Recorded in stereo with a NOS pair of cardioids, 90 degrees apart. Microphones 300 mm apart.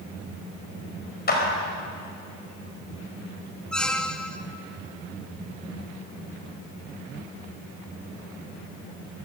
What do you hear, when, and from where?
1.3 s a clap: 30° left, 5 m
3.7 s a squeak: 5° left, 0.9 m